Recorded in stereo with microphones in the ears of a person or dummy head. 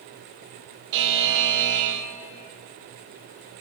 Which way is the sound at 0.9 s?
65° right (ahead or behind).